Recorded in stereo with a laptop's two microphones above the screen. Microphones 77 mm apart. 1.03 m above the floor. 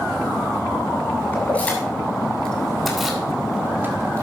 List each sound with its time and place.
1.3 s keys jangling: 25° left (ahead or behind), 3 m; by 4.2 s 40° right (ahead or behind), 1.5 m